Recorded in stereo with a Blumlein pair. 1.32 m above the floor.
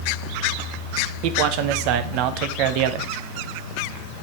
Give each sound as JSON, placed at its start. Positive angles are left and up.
{"t": 1.2, "sound": "a man speaking", "azimuth_deg": -45, "distance_m": 0.9}